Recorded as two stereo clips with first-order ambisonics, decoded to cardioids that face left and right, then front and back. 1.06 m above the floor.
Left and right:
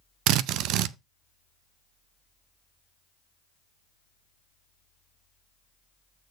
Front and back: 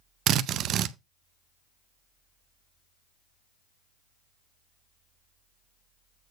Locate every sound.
0.3 s a drill: 130° right, 0.6 m